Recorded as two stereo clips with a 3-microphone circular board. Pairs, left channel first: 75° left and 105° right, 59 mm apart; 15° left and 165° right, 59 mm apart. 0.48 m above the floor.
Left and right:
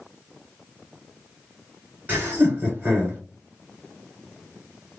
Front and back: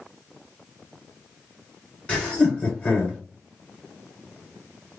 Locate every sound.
2.1 s laughter: 55° right, 2 m